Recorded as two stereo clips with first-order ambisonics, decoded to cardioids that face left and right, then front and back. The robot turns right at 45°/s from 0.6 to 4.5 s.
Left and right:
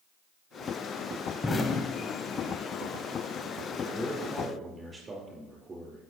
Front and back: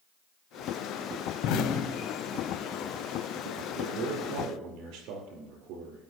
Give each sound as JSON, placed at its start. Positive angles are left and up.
{"t": 1.4, "sound": "an explosion", "azimuth_deg": 20, "distance_m": 0.7}
{"t": 3.7, "sound": "a man speaking", "azimuth_deg": 170, "distance_m": 4.5}